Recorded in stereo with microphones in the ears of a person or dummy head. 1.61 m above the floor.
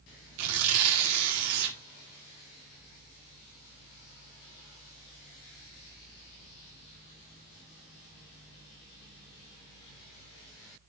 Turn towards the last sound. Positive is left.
turn(degrees=-80)